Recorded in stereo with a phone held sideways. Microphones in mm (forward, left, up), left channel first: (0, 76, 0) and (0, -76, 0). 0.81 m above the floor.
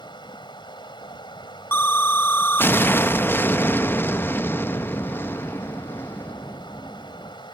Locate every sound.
0.0 s running water: 30° left (ahead or behind)
1.7 s an explosion: 15° left (ahead or behind)